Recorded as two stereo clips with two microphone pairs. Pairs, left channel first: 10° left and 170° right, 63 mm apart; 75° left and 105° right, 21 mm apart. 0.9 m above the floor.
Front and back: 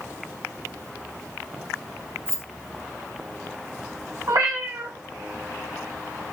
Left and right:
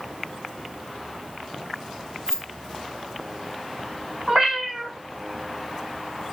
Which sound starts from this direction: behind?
A cat meowing, at 4.3 s.